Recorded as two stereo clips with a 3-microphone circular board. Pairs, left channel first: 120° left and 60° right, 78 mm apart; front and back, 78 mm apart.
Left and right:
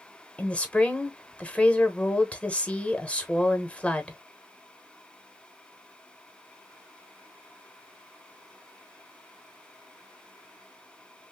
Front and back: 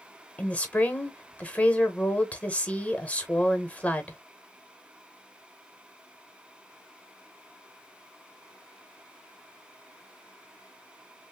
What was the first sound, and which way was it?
A woman speaking, 60° left.